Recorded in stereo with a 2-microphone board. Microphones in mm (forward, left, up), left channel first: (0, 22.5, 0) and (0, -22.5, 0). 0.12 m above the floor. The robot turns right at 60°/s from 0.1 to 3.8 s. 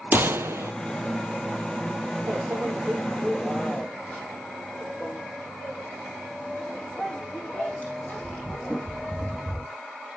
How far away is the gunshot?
About 0.6 m.